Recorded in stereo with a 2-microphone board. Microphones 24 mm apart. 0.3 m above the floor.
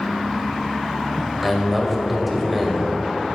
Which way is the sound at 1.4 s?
5° right (ahead or behind).